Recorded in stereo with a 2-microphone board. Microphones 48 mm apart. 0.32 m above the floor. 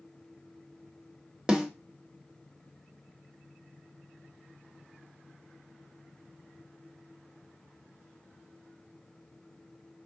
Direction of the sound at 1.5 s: 15° right (ahead or behind).